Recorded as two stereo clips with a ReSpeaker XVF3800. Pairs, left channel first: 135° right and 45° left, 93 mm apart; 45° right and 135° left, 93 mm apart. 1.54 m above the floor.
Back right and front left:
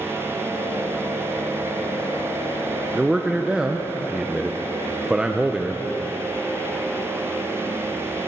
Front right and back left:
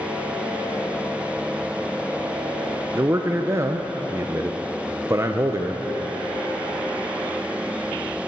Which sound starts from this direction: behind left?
A man speaking, at 3.0 s.